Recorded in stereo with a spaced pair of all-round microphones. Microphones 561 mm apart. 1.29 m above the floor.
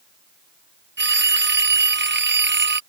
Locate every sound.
1.0 s a phone ringing: 20° right (ahead or behind)